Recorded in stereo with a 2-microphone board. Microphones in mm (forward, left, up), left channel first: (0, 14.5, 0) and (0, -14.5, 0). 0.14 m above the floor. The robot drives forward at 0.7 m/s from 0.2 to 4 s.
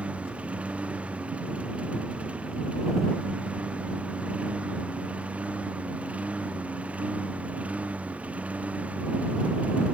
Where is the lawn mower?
45° right (ahead or behind); by 9.9 s 50° right (ahead or behind).